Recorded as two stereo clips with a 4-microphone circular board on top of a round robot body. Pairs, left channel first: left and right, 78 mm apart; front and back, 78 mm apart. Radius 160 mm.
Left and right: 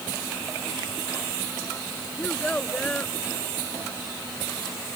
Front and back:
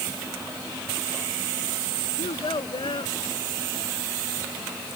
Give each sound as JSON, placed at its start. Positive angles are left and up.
{"t": 2.2, "sound": "a child speaking", "azimuth_deg": 15}